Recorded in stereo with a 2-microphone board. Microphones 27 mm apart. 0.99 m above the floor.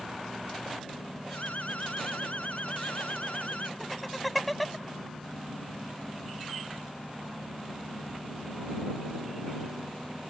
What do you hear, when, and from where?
1.3 s an alarm: 65° left (ahead or behind)
3.8 s laughter: centre (ahead or behind)